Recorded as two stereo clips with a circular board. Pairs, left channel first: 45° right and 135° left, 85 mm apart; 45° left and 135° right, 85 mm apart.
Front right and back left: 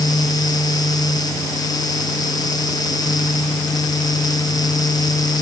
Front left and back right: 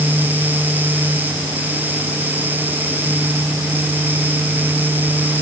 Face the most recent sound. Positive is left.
No sound to turn to.